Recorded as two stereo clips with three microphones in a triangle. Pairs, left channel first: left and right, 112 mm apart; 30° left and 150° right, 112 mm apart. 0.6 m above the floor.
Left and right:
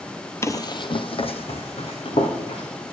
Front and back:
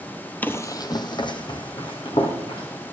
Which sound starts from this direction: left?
Running footsteps, at 0.4 s.